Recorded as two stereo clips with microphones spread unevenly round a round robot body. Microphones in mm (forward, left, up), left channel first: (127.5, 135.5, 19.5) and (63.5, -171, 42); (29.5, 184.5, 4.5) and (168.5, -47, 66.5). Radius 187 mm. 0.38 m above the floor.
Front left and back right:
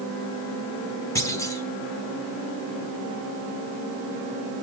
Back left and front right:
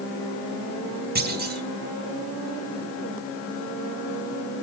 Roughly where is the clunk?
Ahead.